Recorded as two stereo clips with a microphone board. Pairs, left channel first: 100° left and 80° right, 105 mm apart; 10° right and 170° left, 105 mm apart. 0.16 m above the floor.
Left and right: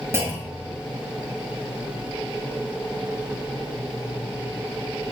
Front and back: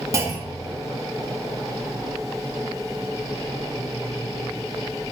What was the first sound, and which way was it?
A clunk, 135° right.